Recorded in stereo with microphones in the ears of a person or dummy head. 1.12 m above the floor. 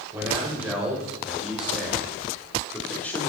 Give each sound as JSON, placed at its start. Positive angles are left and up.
{"t": 0.1, "sound": "a man speaking", "side_deg": -15, "distance_m": 4.0}